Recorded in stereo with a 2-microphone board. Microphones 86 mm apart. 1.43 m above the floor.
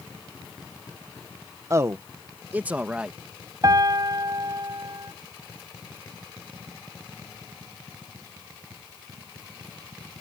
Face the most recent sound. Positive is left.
turn(degrees=-40)  # may be behind; listen again after turning